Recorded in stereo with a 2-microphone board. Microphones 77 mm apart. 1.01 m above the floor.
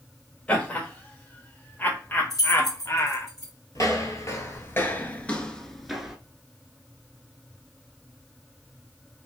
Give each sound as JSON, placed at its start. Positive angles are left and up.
{"t": 0.5, "sound": "laughter", "side_deg": 15, "distance_m": 2.0}
{"t": 2.3, "sound": "keys jangling", "side_deg": 50, "distance_m": 2.0}
{"t": 3.8, "sound": "footsteps", "side_deg": 45, "distance_m": 1.4}